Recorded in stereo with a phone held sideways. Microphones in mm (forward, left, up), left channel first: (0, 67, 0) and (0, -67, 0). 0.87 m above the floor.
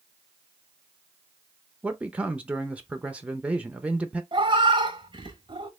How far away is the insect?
No insect in this recording.